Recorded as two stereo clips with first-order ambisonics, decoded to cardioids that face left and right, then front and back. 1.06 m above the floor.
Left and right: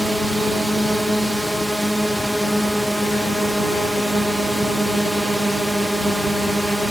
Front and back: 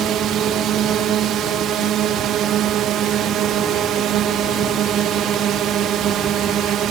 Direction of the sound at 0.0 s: 175° right.